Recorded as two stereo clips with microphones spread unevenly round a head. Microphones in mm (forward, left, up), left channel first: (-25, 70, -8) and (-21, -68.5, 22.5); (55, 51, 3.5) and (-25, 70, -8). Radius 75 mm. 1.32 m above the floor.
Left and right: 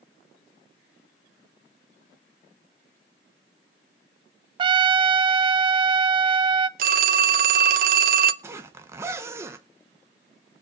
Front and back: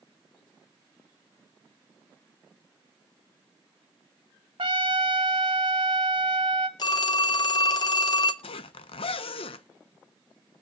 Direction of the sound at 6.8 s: 65° right.